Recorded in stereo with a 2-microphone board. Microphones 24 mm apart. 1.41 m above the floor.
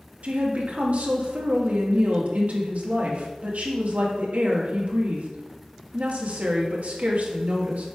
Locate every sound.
0.2 s a woman speaking: 70° right (ahead or behind), 2 m